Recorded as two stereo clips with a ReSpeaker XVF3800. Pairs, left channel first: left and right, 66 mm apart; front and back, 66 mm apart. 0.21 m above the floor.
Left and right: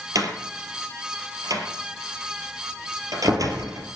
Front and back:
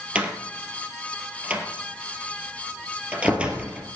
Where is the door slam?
105° right, 3 m.